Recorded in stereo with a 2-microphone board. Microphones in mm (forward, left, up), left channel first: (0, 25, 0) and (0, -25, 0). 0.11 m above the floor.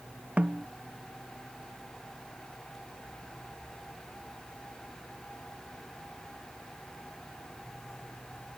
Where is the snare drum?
25° right (ahead or behind).